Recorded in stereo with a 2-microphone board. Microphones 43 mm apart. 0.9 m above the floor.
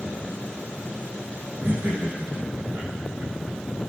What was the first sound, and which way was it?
Laughter, 65° right (ahead or behind).